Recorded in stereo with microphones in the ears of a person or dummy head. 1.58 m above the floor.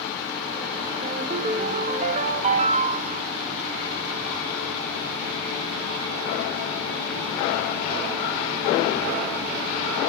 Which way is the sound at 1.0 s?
40° right (ahead or behind).